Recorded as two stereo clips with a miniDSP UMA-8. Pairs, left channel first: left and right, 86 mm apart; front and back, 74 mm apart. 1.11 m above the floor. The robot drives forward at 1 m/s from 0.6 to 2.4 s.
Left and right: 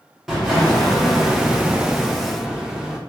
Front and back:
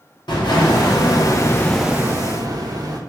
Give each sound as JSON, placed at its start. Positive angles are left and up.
{"t": 0.3, "sound": "an explosion", "azimuth_deg": -5, "distance_m": 1.3}